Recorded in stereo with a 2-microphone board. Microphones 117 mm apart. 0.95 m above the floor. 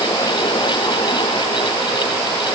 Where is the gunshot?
I don't hear a gunshot.